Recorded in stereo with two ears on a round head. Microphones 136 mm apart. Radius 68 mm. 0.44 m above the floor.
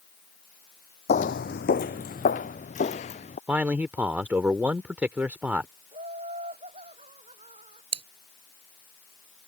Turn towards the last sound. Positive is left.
turn(degrees=-40)  # may be behind; listen again after turning